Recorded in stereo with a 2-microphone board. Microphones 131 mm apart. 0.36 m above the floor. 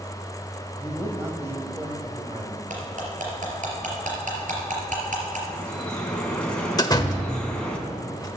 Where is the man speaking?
15° right (ahead or behind), 1.8 m; by 2.6 s 35° right (ahead or behind), 1.4 m.